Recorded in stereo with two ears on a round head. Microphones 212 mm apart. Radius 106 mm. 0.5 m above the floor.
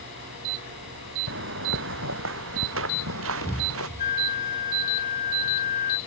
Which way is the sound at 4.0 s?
35° left (ahead or behind).